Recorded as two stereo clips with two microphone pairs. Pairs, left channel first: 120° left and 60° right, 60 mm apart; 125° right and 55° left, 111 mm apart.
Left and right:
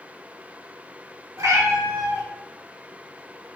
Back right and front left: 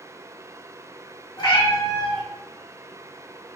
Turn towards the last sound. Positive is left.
turn(degrees=-80)